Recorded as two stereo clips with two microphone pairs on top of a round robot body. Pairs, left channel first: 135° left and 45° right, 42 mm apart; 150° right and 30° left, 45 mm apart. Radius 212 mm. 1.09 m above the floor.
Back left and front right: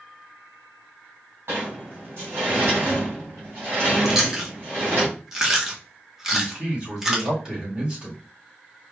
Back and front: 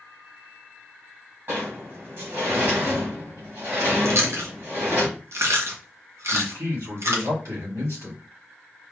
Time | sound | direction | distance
1.5 | a sliding door | 10° right | 2 m
4.0 | chewing | 35° left | 1.2 m
6.3 | a man speaking | 25° left | 3 m